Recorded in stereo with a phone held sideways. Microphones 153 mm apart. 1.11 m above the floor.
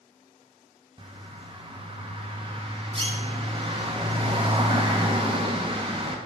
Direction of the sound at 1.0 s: 35° right (ahead or behind).